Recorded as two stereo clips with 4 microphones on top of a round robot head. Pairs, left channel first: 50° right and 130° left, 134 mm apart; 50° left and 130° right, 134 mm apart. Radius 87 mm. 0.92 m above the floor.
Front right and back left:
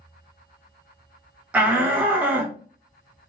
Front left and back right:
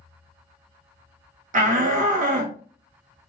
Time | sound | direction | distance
1.5 | a shout | 150° right | 0.6 m